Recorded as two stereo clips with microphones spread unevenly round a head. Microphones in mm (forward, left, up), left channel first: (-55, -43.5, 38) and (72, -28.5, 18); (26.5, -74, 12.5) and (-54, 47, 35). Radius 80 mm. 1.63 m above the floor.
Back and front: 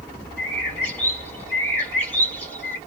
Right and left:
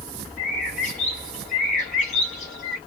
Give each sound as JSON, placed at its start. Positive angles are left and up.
{"t": 0.4, "sound": "a bird", "azimuth_deg": -100, "distance_m": 2.5}